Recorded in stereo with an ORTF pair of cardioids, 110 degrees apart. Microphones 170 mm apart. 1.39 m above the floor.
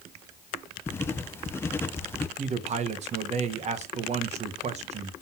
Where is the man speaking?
40° right, 1.0 m.